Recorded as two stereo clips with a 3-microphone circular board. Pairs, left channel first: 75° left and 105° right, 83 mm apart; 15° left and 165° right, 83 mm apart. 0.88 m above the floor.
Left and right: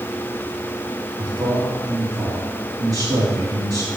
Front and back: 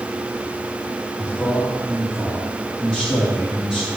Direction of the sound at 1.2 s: 80° right.